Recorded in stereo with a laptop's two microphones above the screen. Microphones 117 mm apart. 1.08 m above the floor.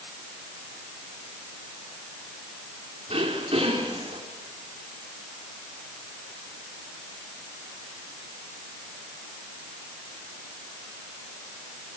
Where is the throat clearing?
55° right (ahead or behind), 4 m.